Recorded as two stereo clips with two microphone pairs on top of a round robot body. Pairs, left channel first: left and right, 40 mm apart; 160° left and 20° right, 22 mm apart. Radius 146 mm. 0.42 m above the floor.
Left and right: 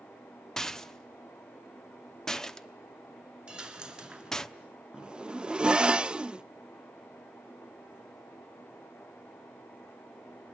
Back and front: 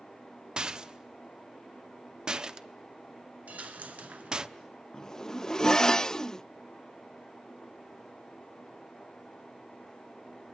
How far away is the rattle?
About 1.1 m.